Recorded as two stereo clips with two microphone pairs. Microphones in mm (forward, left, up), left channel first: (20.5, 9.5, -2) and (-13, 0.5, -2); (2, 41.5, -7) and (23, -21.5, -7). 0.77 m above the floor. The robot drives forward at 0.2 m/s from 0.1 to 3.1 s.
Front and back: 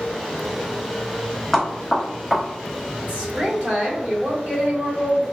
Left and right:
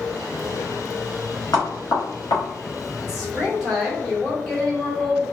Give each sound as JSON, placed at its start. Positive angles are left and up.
{"t": 1.5, "sound": "knocking", "azimuth_deg": 100, "distance_m": 1.2}
{"t": 3.0, "sound": "a woman speaking", "azimuth_deg": -165, "distance_m": 1.3}